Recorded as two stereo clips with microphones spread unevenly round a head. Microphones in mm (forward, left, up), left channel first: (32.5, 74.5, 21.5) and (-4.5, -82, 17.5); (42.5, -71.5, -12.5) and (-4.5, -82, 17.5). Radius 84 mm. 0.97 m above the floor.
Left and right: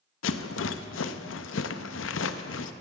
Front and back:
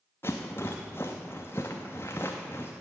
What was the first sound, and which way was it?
A rattle, 85° left.